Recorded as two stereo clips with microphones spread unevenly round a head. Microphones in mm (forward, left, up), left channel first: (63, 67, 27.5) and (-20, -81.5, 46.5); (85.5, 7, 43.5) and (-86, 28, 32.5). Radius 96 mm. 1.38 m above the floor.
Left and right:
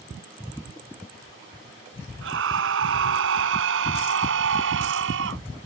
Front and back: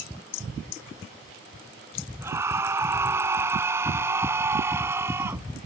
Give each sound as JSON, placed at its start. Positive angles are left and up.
{"t": 2.2, "sound": "a scream", "azimuth_deg": -110}